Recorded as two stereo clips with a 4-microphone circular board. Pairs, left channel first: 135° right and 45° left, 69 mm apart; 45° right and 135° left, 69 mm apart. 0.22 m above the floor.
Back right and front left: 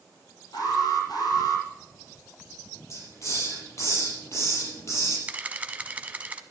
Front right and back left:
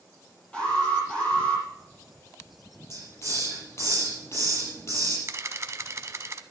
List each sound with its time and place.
0.5 s an alarm: 120° right, 8 m
2.9 s a hiss: 90° right, 5.5 m
5.3 s a camera shutter: 105° left, 0.8 m